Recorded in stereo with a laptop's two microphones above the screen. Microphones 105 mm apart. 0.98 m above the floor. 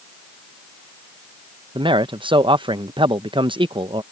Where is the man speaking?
50° right (ahead or behind).